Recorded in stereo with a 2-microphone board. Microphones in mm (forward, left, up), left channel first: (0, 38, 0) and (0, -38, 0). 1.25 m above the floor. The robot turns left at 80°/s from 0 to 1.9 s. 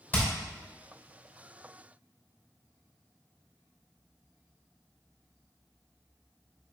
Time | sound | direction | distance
0.1 | hammering | 25° left (ahead or behind) | 3 m